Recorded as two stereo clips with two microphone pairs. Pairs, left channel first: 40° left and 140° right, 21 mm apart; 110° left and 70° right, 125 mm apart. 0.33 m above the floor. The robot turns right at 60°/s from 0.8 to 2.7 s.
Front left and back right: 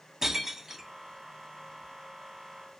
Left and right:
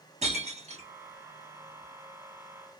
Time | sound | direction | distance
0.2 | breaking glass | 70° right | 1.4 m